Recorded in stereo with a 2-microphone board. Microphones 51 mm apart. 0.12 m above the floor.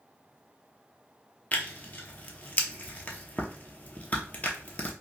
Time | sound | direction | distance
1.5 | tearing paper | 30° left (ahead or behind) | 0.7 m